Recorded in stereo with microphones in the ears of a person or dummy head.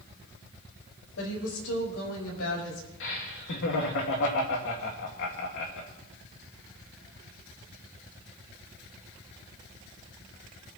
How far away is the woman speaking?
About 4.5 m.